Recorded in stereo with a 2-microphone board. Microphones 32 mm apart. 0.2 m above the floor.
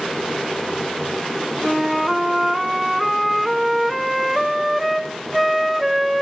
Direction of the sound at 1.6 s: Centre (ahead or behind).